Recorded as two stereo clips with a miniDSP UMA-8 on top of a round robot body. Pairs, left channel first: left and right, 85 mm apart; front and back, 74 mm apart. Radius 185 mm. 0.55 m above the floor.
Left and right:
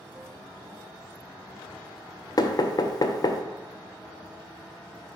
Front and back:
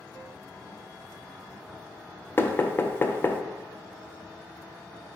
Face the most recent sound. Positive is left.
turn(degrees=55)